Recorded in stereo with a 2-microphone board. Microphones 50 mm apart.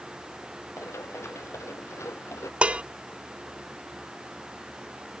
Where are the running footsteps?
85° left.